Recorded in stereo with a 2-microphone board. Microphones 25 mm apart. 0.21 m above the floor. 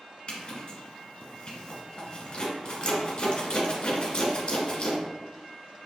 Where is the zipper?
45° left (ahead or behind), 1.0 m.